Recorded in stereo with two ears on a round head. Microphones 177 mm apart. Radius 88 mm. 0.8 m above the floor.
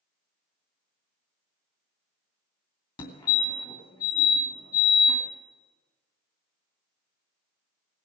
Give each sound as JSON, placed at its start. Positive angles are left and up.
{"t": 3.0, "sound": "a fire alarm", "side_deg": 25, "distance_m": 2.5}